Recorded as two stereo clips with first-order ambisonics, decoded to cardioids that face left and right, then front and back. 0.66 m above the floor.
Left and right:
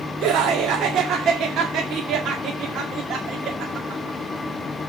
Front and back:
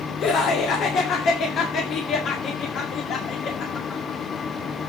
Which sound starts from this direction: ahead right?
Laughter, at 0.2 s.